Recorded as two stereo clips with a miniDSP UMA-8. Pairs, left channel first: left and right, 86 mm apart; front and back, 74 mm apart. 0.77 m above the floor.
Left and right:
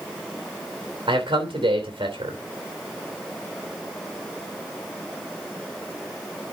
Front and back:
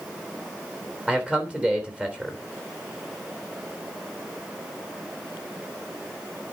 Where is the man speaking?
100° right, 3 m.